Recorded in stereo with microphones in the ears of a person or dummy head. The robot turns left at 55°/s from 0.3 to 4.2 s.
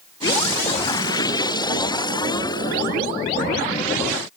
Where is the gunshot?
No gunshot in this recording.